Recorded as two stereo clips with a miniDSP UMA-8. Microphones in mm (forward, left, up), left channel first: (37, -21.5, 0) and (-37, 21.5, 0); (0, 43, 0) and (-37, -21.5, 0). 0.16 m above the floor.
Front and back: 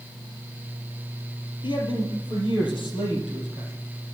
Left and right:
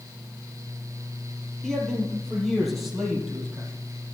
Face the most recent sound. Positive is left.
turn(degrees=-35)